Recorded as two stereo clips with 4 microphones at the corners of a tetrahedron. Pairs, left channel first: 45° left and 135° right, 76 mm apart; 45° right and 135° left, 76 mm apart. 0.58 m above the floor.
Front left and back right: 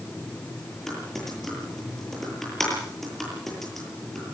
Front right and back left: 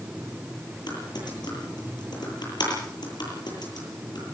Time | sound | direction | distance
0.9 | typing on a keyboard | 40° right | 9.5 m